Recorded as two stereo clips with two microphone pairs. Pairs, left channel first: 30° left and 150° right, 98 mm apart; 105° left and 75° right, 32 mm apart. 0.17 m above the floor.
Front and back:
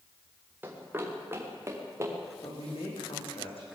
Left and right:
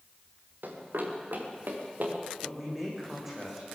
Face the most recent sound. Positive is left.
turn(degrees=10)